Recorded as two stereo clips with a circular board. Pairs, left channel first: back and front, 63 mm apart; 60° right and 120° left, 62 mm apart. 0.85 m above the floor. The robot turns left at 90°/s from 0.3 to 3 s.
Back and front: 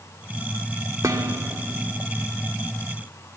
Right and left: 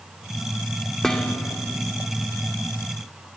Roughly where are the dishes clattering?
Ahead left.